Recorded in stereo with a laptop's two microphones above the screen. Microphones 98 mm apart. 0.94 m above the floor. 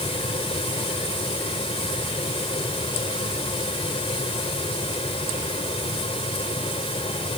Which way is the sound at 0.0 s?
80° left.